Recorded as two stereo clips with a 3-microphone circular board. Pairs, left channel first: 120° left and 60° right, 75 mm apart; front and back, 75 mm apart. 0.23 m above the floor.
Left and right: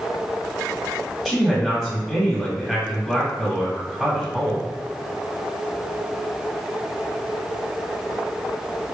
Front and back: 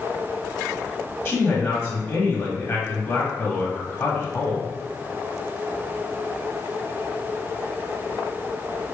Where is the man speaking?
15° left, 1.2 m.